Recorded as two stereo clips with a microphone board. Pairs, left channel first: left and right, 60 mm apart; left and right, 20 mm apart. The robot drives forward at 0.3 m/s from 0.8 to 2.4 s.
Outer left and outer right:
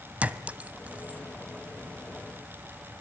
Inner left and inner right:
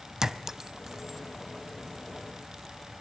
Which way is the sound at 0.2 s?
25° right (ahead or behind).